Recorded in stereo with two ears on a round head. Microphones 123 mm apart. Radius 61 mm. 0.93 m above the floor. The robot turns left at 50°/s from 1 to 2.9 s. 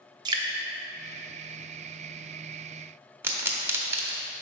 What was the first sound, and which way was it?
Dripping, 30° right (ahead or behind).